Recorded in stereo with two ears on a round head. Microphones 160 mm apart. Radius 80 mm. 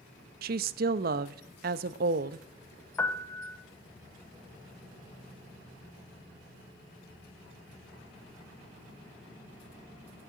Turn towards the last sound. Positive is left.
turn(degrees=15)  # may be behind; listen again after turning